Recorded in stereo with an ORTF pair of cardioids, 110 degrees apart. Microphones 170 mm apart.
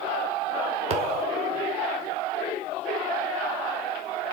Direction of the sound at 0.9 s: 35° right.